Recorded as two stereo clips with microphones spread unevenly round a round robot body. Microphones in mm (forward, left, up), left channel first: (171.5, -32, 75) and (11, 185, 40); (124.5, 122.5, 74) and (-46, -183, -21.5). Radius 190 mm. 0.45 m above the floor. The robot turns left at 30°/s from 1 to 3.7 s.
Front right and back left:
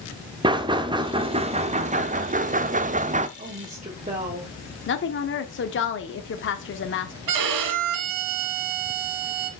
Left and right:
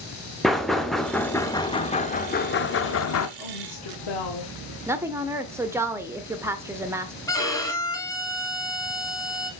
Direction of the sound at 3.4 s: 85° left.